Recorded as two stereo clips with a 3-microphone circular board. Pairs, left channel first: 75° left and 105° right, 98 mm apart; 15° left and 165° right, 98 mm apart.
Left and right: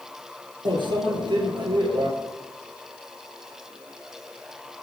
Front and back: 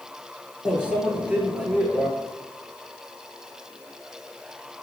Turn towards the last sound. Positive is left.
turn(degrees=-85)